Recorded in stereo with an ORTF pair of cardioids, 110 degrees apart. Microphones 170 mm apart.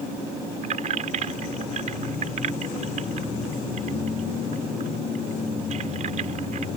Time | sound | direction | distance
0.6 | keys jangling | 45° right | ?